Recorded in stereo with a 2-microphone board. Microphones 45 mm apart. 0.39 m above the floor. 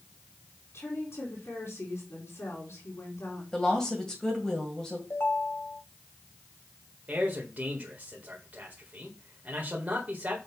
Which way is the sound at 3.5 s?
15° left (ahead or behind).